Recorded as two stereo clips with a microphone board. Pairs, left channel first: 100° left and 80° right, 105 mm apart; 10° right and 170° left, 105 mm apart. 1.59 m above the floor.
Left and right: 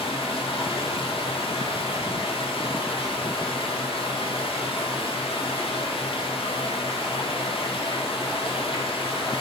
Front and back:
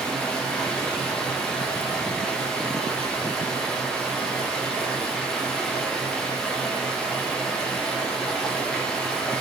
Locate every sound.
0.0 s running water: 70° left, 1.7 m